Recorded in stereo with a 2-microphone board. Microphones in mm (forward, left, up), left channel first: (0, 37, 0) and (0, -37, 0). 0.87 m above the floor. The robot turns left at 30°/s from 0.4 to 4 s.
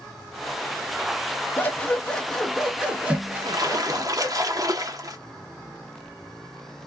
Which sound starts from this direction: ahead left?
Scissors, at 1.6 s.